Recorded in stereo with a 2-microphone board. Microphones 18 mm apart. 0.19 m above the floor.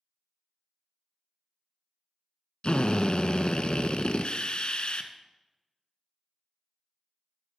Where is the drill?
60° left (ahead or behind), 0.8 m.